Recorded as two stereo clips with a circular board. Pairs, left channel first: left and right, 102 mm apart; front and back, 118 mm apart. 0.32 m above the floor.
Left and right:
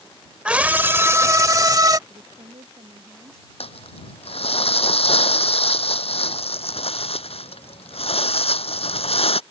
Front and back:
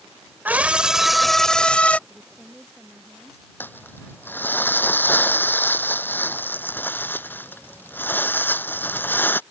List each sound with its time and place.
0.5 s a scream: 145° right; by 2.0 s 70° right
2.1 s a woman speaking: 95° right
3.6 s crumpling: 70° left